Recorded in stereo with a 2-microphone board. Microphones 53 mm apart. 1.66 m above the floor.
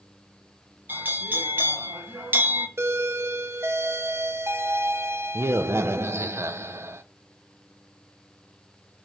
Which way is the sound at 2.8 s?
55° right (ahead or behind).